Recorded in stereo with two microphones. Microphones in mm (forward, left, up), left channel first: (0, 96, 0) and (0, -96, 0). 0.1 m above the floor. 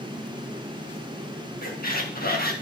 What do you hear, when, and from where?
1.6 s a squeak: 55° left (ahead or behind), 2.5 m